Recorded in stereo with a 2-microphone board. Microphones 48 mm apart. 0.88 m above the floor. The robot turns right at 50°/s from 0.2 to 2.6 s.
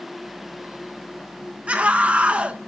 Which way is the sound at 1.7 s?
25° right (ahead or behind).